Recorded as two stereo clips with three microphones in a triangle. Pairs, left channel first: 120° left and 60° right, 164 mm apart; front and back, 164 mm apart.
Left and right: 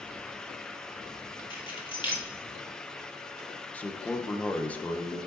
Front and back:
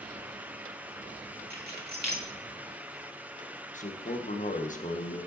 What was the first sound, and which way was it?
Keys jangling, 175° left.